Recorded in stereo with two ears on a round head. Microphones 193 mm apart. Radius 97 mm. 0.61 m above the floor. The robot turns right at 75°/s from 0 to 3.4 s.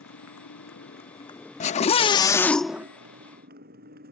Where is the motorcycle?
60° left; by 4.1 s 45° right.